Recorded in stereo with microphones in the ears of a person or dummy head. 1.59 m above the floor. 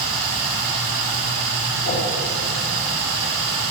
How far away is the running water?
About 4.5 m.